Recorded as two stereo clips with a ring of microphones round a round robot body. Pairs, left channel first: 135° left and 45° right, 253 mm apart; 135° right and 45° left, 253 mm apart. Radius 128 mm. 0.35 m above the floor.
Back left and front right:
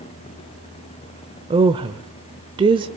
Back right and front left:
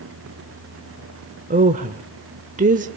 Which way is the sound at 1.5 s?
10° left.